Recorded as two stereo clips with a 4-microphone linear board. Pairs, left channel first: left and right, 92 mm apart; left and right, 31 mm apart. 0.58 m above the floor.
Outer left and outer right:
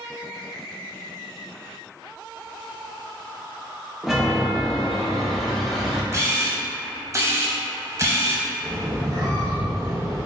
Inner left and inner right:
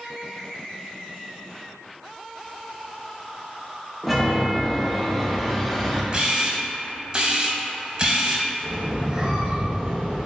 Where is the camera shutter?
35° right (ahead or behind), 0.6 m.